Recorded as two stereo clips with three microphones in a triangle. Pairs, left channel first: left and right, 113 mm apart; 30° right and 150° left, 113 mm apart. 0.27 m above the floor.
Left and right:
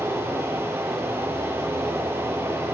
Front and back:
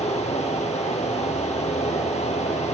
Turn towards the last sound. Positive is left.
turn(degrees=-20)